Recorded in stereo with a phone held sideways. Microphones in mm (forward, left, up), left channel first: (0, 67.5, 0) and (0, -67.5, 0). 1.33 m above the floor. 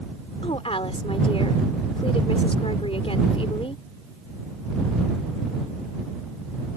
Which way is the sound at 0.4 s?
45° left (ahead or behind).